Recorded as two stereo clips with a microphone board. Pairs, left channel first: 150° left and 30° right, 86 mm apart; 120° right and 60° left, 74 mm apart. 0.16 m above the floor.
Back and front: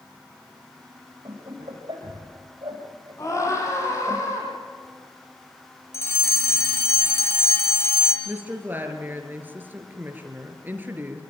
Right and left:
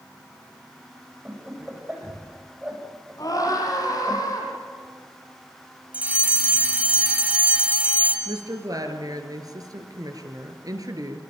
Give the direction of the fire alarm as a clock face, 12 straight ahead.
8 o'clock.